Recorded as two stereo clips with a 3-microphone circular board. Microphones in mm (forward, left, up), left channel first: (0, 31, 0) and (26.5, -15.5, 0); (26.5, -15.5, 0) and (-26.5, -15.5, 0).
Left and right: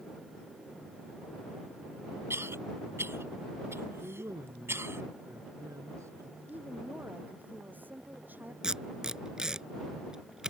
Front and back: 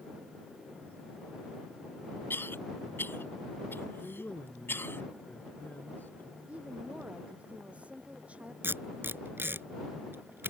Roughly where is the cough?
Ahead right.